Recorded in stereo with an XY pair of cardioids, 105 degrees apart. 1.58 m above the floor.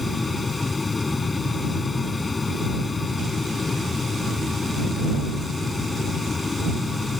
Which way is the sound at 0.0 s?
25° left.